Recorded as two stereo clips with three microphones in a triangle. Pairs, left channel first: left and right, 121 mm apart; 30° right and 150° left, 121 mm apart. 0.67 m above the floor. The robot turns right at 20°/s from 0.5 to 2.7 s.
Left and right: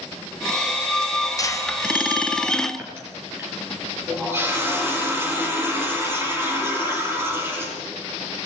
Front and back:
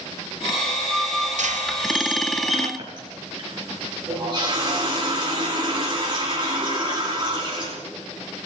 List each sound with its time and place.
1.4 s a squeak: 150° left, 2 m; by 2.7 s 175° left, 2 m
2.8 s a running tap: 160° right, 8 m